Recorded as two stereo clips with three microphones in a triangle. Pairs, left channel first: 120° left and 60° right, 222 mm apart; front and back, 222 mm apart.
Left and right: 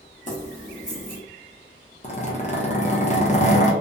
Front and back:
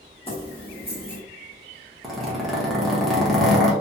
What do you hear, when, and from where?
0.3 s keys jangling: 65° left, 1.0 m
2.0 s a zipper: 90° left, 0.7 m